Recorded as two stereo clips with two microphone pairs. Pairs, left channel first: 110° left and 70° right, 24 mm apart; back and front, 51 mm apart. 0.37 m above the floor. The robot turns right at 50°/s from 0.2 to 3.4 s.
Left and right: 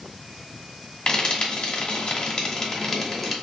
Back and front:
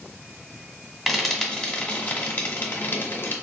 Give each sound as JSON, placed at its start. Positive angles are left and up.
{"t": 1.1, "sound": "frying", "azimuth_deg": 85, "distance_m": 1.0}